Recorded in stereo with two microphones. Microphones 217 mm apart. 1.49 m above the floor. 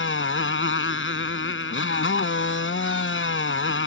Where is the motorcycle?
80° left.